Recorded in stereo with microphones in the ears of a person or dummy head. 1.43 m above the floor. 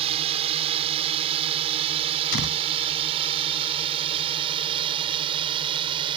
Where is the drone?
35° right (ahead or behind); by 6.2 s 30° right (ahead or behind).